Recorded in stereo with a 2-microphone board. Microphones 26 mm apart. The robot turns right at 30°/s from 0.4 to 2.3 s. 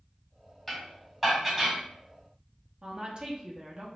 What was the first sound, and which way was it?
Dishes clattering, 15° left (ahead or behind).